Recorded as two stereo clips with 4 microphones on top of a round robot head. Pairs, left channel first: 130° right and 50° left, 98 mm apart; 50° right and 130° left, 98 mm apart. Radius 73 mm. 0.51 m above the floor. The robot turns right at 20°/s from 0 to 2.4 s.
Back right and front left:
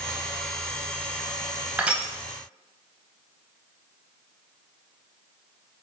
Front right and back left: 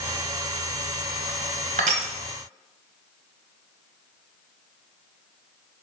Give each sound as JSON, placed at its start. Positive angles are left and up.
{"t": 1.8, "sound": "crushing", "azimuth_deg": 130, "distance_m": 0.6}